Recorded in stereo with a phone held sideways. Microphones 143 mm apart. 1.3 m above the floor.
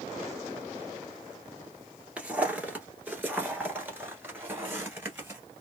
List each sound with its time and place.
2.2 s footsteps: 10° right (ahead or behind), 1.4 m; by 5.4 s 15° right (ahead or behind), 1.6 m